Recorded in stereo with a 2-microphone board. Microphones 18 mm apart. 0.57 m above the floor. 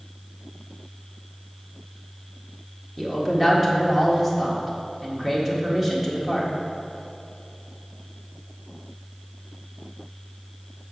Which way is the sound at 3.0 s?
15° right (ahead or behind).